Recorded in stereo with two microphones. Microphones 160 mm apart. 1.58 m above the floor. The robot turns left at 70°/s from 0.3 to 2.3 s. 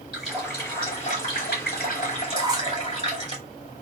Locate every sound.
0.1 s a running tap: straight behind, 2.5 m; by 3.4 s 40° left, 2.5 m
2.4 s a squeak: 25° right (ahead or behind), 1.0 m